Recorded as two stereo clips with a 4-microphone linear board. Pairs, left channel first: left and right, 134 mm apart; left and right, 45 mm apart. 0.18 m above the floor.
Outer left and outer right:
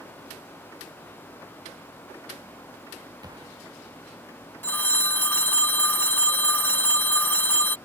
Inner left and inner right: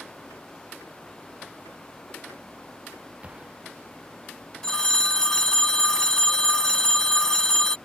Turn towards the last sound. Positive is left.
turn(degrees=15)  # may be behind; listen again after turning